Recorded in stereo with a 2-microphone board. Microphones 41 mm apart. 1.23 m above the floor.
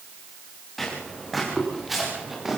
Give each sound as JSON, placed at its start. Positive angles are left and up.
{"t": 0.8, "sound": "footsteps", "side_deg": 5, "distance_m": 6.5}